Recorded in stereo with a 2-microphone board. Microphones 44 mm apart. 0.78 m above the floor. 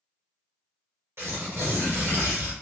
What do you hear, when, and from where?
1.2 s tearing paper: 60° right (ahead or behind), 1.3 m